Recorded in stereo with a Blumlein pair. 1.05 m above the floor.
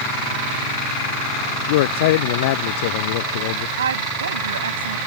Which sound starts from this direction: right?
A woman speaking, at 3.8 s.